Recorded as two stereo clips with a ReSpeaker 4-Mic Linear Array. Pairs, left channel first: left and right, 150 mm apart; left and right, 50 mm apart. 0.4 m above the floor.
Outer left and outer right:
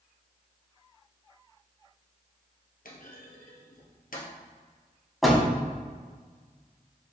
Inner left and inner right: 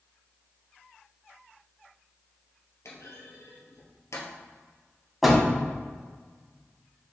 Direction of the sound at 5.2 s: Centre (ahead or behind).